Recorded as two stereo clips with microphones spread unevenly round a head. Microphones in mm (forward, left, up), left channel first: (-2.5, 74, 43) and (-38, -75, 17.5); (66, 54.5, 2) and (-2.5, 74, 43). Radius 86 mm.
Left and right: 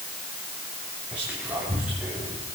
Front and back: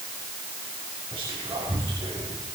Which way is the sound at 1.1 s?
175° left.